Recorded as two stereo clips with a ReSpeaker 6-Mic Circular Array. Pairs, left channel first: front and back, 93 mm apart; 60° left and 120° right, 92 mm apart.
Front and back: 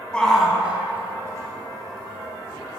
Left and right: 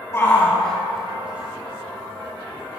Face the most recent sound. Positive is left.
turn(degrees=-160)